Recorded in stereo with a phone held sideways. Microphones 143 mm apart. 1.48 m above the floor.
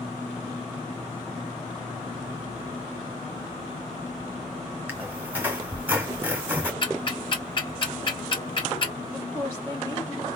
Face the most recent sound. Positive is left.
turn(degrees=20)  # may be behind; listen again after turning